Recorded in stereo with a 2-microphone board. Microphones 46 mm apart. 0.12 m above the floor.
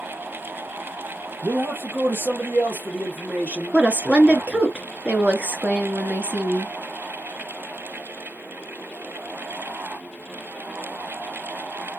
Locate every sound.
1.4 s a man speaking: 60° right (ahead or behind), 2.5 m; by 4.7 s 10° right (ahead or behind), 1.4 m
3.7 s a woman speaking: 25° right (ahead or behind), 1.8 m